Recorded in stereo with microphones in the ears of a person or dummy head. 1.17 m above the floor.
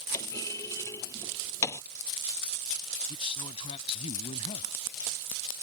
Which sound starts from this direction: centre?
A clunk, at 0.1 s.